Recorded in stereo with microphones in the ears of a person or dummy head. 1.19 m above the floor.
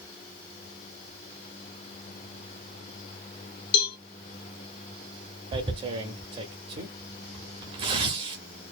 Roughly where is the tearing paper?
Right.